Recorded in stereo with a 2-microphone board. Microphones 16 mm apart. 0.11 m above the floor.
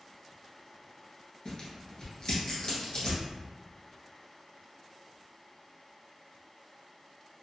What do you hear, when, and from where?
1.4 s tearing paper: 40° left (ahead or behind), 1.1 m